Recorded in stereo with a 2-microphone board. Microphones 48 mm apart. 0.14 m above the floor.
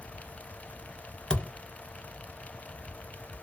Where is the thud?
15° left (ahead or behind), 0.8 m.